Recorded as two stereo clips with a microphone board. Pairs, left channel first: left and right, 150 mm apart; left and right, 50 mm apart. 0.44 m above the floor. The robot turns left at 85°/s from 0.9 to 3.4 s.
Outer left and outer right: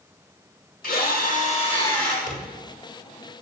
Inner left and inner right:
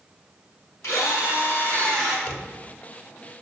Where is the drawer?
55° left (ahead or behind), 1.1 m; by 2.5 s 70° left (ahead or behind), 1.1 m.